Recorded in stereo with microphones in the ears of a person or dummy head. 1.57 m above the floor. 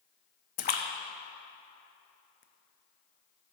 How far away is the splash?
About 0.5 m.